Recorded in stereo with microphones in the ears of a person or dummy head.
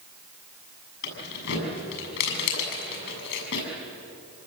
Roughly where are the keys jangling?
Left.